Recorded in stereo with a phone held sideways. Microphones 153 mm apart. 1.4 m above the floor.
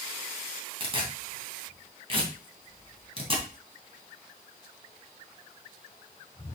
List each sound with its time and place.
0.8 s tearing paper: 40° right (ahead or behind), 2.5 m